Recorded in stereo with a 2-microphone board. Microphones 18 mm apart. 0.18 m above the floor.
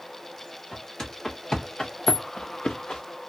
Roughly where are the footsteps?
Left.